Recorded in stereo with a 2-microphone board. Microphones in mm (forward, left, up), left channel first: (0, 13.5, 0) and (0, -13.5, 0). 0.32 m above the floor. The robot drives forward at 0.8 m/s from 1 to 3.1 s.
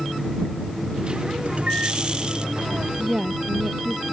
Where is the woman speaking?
25° right (ahead or behind).